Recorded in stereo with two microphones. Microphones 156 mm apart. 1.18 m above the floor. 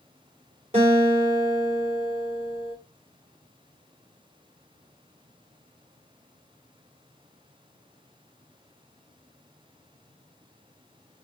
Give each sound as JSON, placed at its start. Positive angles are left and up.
{"t": 0.7, "sound": "a guitar", "side_deg": -40, "distance_m": 3.5}